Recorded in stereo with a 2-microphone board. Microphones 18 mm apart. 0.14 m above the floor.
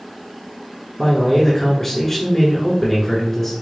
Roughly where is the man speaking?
Centre.